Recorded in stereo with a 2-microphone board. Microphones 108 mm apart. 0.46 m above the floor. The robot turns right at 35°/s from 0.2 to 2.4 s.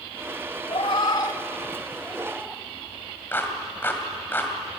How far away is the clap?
About 2.5 m.